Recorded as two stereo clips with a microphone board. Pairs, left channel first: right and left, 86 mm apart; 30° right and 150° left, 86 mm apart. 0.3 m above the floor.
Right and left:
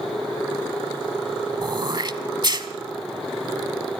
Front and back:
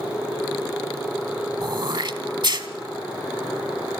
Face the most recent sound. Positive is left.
turn(degrees=120)